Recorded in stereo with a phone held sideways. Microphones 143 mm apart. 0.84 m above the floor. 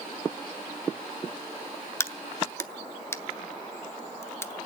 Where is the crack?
20° left (ahead or behind), 0.7 m.